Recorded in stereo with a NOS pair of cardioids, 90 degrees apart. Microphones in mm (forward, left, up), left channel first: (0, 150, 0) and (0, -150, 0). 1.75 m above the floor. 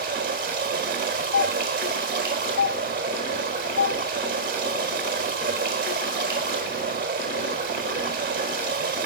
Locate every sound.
0.0 s running water: 40° right, 4 m
1.3 s a doorbell: 55° left, 3 m